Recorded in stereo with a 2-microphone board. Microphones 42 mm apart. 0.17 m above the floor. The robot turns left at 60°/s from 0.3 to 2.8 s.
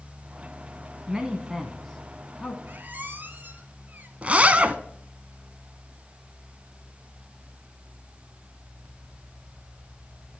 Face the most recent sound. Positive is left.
turn(degrees=-30)  # may be behind; listen again after turning